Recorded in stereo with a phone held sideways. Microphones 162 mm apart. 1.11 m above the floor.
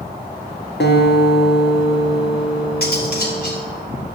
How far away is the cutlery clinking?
About 3.5 m.